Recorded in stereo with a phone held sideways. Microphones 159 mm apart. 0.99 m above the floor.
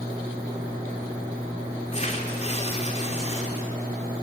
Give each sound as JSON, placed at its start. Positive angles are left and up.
{"t": 1.9, "sound": "tearing paper", "side_deg": 45, "distance_m": 3.0}